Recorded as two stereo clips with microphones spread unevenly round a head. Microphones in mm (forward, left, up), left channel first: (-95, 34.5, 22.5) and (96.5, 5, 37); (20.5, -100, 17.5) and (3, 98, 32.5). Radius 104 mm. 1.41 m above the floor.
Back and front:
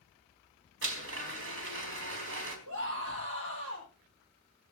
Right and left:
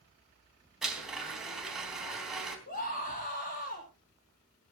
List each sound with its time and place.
0.8 s a blender: 10° left, 4 m
2.7 s a scream: 40° right, 7.5 m